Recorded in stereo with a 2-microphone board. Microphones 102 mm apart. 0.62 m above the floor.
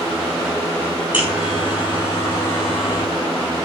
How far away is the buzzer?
About 10 m.